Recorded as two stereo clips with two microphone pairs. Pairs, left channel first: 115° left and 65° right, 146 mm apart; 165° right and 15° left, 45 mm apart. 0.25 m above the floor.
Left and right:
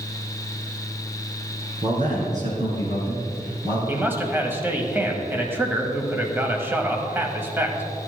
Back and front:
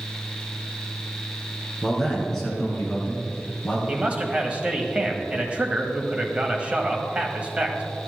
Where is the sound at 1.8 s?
80° right, 3 m; by 3.8 s 110° right, 2.5 m.